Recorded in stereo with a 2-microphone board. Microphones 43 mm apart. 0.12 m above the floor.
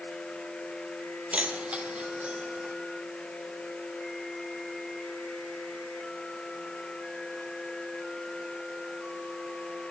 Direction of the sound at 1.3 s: 35° right (ahead or behind).